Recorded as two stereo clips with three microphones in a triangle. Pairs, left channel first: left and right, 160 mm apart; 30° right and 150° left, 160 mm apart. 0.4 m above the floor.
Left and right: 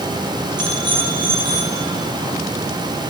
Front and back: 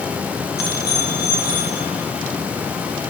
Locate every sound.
0.6 s a bicycle bell: 25° right, 9.5 m; by 1.8 s 35° right, 10.5 m